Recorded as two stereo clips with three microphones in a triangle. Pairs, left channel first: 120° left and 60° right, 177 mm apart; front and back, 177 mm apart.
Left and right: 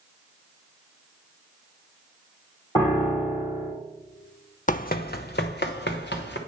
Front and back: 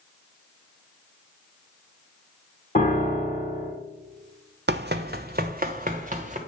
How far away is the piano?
About 3.5 m.